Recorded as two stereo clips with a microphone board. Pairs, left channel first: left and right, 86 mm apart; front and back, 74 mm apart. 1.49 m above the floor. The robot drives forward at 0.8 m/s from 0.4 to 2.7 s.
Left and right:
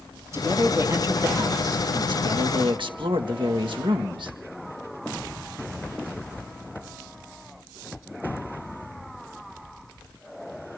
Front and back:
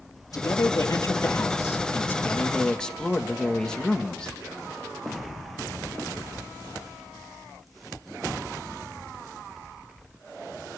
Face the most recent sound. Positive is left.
turn(degrees=-80)